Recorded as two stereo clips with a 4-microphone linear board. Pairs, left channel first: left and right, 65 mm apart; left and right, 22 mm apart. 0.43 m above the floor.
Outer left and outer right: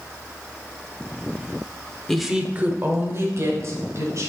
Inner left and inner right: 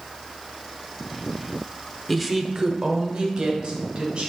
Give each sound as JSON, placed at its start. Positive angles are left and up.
{"t": 2.1, "sound": "a woman speaking", "side_deg": 10, "distance_m": 0.9}